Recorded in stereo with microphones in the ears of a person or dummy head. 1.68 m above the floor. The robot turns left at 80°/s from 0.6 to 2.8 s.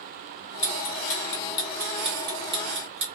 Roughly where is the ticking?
Left.